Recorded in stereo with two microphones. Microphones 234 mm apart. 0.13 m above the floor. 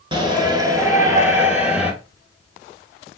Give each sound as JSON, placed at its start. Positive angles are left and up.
{"t": 0.1, "sound": "a shout", "side_deg": -20, "distance_m": 1.6}